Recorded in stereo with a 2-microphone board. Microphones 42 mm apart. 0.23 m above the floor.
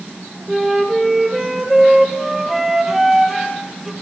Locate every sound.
0.5 s a flute: 10° right (ahead or behind), 1.3 m